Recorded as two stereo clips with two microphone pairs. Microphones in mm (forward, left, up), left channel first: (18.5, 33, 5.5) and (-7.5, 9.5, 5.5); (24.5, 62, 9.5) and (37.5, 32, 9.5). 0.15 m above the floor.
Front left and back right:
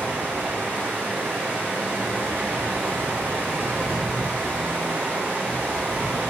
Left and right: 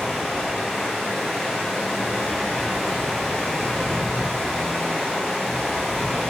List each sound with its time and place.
0.0 s running water: 160° right, 2 m